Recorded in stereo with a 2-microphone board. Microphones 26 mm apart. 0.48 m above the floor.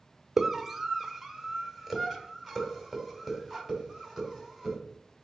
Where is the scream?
10° right (ahead or behind), 1.1 m; by 4.8 s 10° left (ahead or behind), 3.5 m.